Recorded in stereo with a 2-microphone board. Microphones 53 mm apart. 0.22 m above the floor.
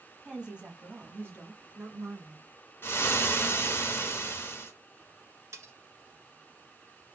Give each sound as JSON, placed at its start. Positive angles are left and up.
{"t": 0.2, "sound": "a woman speaking", "side_deg": -10, "distance_m": 1.2}
{"t": 2.8, "sound": "frying", "side_deg": 35, "distance_m": 1.6}
{"t": 5.5, "sound": "cutlery clinking", "side_deg": -65, "distance_m": 1.5}